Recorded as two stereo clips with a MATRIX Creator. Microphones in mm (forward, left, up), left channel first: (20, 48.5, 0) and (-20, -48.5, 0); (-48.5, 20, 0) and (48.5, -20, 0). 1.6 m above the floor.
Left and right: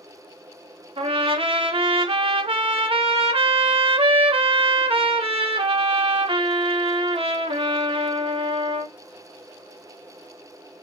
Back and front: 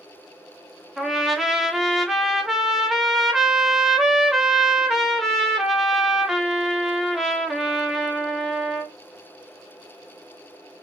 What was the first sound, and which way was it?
A trumpet, 110° right.